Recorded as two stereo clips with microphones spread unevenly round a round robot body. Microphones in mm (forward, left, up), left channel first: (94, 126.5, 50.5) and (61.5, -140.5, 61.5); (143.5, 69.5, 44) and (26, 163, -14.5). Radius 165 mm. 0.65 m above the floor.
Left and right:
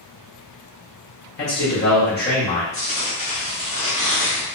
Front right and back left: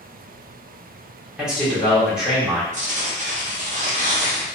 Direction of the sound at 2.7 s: 150° left.